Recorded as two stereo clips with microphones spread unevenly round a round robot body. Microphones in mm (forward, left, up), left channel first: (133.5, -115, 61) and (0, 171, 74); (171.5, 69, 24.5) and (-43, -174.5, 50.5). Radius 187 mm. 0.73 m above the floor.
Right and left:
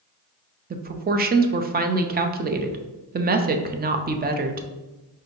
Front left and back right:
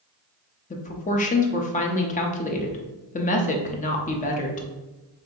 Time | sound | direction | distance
0.7 | a woman speaking | 75° left | 0.5 m